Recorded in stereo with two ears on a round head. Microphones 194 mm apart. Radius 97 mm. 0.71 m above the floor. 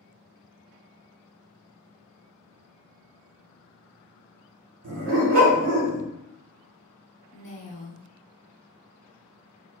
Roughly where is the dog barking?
Right.